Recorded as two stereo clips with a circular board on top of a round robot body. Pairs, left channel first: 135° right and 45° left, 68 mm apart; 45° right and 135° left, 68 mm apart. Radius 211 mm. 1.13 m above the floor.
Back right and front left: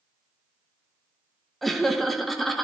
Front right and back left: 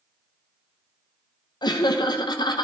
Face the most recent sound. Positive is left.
turn(degrees=-45)